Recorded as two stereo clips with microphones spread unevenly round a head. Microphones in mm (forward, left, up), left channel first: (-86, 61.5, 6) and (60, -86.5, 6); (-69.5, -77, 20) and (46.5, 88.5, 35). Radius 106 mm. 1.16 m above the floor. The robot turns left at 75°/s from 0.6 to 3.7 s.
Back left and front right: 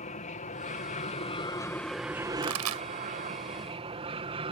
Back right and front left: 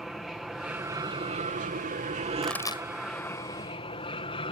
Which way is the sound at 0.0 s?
145° left.